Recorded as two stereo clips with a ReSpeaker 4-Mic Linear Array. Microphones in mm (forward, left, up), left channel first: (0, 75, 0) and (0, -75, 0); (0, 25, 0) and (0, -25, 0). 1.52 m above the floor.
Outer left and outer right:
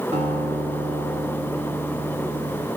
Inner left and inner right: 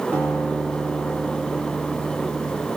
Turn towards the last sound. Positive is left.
turn(degrees=-45)  # may be behind; listen again after turning